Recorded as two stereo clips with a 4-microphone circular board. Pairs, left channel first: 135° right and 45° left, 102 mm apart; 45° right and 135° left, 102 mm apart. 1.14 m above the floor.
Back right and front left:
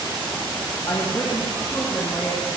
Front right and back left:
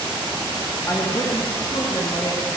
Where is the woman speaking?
95° right, 1.5 m; by 2.5 s 60° right, 3.5 m.